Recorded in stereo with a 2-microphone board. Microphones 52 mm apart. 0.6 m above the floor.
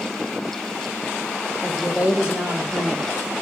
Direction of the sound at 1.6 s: 20° right (ahead or behind).